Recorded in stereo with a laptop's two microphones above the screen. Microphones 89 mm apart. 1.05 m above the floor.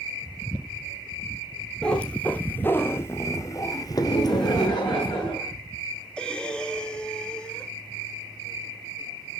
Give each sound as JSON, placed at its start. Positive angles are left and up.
{"t": 1.8, "sound": "a cat meowing", "side_deg": 10, "distance_m": 1.9}
{"t": 4.0, "sound": "laughter", "side_deg": 50, "distance_m": 7.0}
{"t": 6.2, "sound": "breathing", "side_deg": 10, "distance_m": 2.5}